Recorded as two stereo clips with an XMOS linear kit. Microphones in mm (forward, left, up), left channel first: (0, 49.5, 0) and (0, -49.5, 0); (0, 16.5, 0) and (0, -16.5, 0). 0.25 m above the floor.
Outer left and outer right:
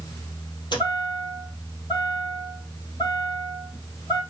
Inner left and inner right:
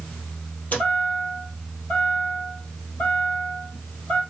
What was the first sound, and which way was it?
A chime, 50° left (ahead or behind).